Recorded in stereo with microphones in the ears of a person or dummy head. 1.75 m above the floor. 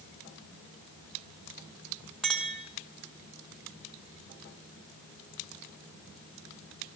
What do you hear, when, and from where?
2.2 s a clink: centre (ahead or behind), 1.2 m